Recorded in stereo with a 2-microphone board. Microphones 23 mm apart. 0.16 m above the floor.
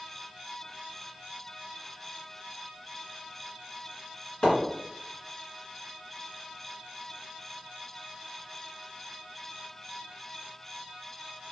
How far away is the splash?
About 1.9 m.